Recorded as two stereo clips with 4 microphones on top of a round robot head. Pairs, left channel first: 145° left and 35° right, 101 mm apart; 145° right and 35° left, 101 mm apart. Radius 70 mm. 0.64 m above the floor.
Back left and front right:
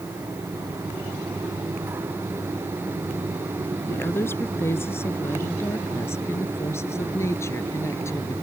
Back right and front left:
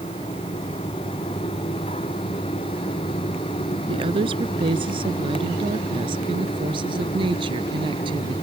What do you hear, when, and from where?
3.9 s a woman speaking: 75° left; by 8.3 s 80° left